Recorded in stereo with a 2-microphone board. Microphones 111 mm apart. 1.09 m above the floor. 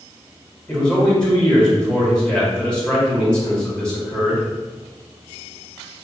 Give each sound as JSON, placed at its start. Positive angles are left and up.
{"t": 0.7, "sound": "a man speaking", "side_deg": 10, "distance_m": 1.7}